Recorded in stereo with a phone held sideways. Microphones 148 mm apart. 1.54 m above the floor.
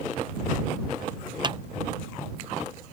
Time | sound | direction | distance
1.4 | a clap | 30° right (ahead or behind) | ?